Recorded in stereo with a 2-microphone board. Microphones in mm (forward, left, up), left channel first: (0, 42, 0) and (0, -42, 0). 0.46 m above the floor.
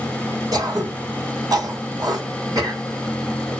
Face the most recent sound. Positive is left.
turn(degrees=-55)  # may be behind; listen again after turning